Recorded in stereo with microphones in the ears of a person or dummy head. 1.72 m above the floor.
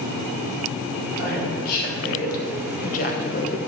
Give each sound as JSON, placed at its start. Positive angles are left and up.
{"t": 1.2, "sound": "a woman speaking", "side_deg": 45, "distance_m": 4.0}